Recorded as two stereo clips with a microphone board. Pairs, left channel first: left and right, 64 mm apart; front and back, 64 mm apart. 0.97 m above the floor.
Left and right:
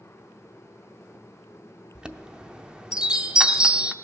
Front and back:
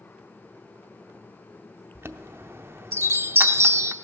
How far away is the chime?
About 0.6 m.